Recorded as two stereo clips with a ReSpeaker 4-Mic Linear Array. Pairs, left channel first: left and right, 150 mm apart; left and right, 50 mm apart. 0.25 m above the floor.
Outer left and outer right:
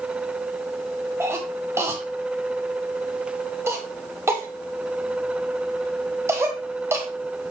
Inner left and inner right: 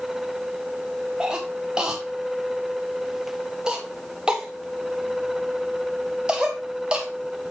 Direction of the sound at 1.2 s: 15° right (ahead or behind).